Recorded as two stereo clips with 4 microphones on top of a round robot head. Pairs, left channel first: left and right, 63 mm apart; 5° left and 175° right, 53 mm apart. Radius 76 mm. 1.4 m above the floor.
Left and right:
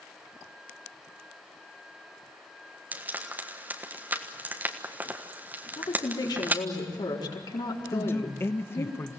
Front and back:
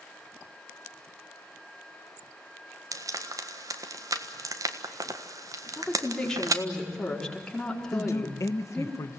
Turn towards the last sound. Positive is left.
turn(degrees=35)